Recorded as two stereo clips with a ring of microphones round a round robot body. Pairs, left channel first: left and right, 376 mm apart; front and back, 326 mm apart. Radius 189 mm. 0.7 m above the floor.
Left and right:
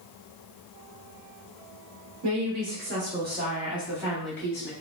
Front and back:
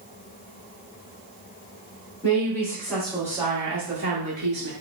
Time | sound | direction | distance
2.2 | a woman speaking | 75° right | 1.3 m